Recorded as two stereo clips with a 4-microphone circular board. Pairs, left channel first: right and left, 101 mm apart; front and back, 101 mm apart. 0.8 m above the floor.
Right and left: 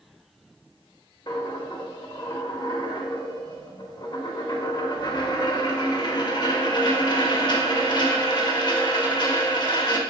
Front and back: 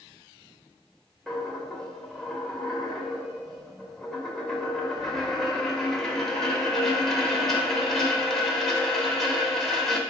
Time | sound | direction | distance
1.3 | a dropped coin | 85° right | 0.6 m